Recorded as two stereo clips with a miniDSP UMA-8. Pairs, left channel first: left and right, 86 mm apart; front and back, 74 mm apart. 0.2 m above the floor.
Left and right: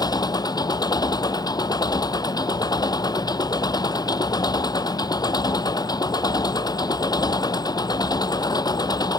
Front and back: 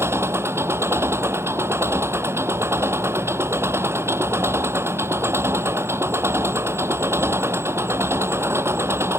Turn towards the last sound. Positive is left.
turn(degrees=125)